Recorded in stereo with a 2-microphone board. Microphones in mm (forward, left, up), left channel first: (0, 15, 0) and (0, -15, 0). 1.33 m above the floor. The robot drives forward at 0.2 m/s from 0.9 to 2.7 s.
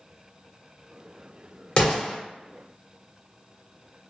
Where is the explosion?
40° left (ahead or behind), 1.3 m.